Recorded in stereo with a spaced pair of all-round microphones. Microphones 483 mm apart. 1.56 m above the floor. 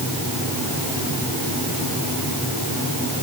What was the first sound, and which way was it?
Only background noise.